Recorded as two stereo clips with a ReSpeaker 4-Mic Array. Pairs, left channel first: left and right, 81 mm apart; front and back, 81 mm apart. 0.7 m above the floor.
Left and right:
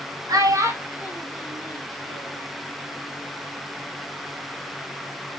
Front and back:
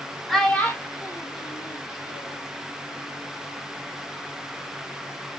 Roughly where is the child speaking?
Right.